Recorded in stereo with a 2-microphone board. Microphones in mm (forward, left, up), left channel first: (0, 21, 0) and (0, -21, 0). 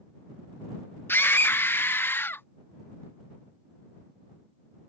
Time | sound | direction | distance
1.1 | a scream | 65° left (ahead or behind) | ?